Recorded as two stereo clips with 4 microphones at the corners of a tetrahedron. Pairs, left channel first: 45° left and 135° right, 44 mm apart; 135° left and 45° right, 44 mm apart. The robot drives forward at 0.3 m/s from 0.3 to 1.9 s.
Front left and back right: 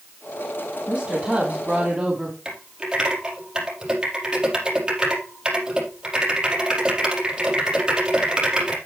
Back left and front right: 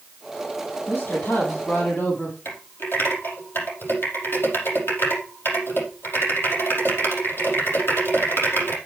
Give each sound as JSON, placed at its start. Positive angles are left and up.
{"t": 0.9, "sound": "a woman speaking", "azimuth_deg": 160, "distance_m": 3.0}
{"t": 2.5, "sound": "typing on a keyboard", "azimuth_deg": 155, "distance_m": 5.0}